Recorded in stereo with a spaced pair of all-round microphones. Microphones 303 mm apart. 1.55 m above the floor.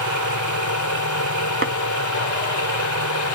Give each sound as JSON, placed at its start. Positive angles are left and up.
{"t": 0.0, "sound": "a machine running", "side_deg": 70}
{"t": 1.6, "sound": "tapping", "side_deg": -45}